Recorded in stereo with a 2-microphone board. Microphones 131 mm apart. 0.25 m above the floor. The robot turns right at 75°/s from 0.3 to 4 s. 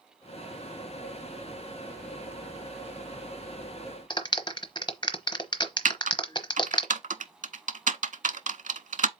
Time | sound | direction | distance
4.1 | a clap | 35° left (ahead or behind) | 1.0 m
5.8 | typing on a keyboard | 80° right | 0.6 m